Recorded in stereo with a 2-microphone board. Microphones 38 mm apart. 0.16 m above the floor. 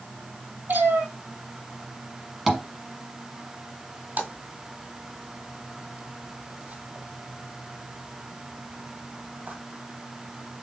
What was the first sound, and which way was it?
A cat meowing, 55° right (ahead or behind).